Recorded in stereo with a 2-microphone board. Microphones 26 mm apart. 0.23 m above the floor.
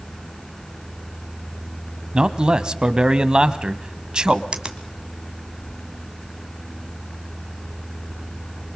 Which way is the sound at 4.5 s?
30° right (ahead or behind).